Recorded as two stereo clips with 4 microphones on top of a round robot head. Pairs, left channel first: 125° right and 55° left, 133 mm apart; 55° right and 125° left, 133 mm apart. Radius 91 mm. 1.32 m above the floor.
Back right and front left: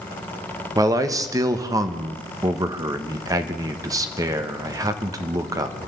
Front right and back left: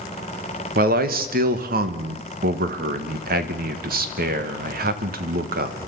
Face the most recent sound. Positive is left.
turn(degrees=120)